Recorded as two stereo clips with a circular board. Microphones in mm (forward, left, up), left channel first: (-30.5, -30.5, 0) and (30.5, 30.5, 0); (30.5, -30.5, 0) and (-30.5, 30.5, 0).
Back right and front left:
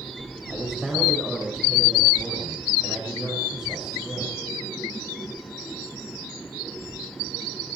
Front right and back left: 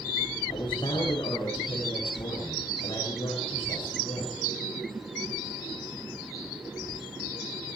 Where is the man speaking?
35° right, 7.5 m.